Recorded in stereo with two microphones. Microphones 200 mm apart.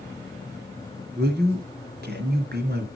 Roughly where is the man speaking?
Right.